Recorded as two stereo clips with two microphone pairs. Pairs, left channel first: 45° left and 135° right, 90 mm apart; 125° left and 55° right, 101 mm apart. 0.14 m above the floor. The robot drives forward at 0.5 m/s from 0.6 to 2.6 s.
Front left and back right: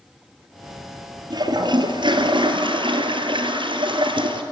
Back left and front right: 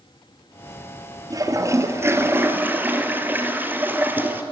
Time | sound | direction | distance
1.3 | a toilet flushing | 105° right | 1.7 m